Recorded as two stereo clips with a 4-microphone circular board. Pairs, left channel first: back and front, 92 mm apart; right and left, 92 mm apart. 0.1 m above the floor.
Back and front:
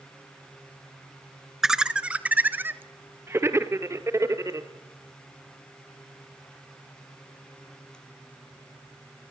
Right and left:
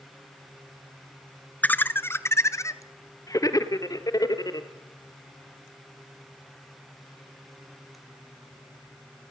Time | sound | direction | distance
1.6 | laughter | 75° right | 1.1 m